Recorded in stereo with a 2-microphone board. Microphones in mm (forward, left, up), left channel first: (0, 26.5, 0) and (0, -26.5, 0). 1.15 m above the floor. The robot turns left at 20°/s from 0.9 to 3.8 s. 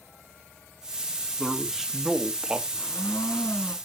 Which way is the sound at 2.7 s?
55° left (ahead or behind).